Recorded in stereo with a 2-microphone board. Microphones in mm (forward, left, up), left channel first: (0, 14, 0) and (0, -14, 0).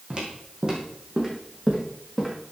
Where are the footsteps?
35° right (ahead or behind), 3 m; by 2.3 s 10° right (ahead or behind), 3 m.